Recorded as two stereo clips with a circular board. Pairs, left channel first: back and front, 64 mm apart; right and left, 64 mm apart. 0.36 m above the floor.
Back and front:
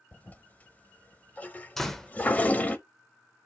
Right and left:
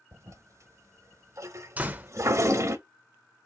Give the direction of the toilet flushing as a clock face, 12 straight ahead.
8 o'clock.